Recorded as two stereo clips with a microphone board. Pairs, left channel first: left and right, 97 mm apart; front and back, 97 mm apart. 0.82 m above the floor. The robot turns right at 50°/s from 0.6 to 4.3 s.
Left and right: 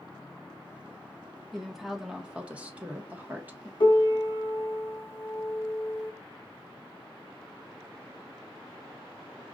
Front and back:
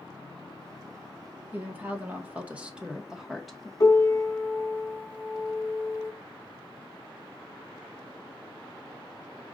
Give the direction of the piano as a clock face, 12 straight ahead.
10 o'clock.